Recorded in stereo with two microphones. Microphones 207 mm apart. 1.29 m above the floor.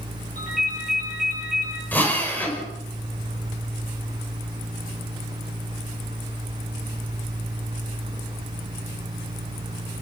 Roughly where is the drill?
Centre.